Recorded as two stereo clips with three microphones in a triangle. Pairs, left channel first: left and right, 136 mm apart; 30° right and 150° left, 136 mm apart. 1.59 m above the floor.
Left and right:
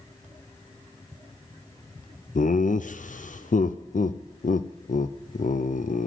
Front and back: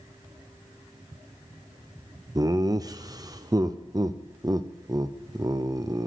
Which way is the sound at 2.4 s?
90° left.